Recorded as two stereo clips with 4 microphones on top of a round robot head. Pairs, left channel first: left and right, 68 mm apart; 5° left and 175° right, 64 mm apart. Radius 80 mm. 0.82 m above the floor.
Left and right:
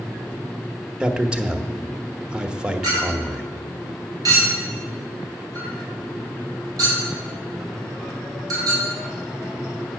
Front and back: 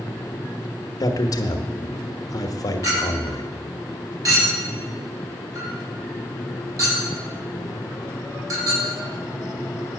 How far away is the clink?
About 4.5 m.